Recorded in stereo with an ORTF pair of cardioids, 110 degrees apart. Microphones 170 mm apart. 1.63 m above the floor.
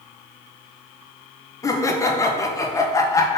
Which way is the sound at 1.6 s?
20° left.